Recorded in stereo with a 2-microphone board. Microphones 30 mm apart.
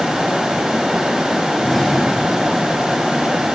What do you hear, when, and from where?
1.6 s an explosion: 5° left (ahead or behind), 5 m